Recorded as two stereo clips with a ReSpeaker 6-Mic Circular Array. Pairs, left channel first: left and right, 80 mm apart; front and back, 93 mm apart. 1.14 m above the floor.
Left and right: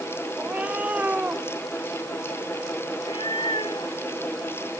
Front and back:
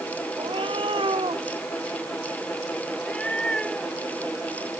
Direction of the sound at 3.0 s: 80° left.